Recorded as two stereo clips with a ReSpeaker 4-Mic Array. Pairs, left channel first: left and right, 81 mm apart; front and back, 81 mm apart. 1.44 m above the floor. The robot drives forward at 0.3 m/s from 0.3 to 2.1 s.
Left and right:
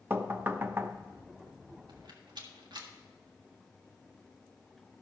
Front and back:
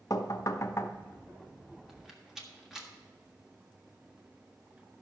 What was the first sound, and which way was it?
Knocking, 30° right.